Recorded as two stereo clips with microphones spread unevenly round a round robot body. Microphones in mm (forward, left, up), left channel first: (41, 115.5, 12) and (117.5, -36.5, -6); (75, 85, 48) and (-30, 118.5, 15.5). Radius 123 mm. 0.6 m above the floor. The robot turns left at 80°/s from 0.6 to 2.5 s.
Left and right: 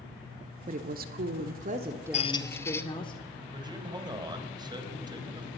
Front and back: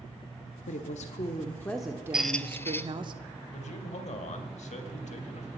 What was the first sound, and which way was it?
A woman speaking, 25° right.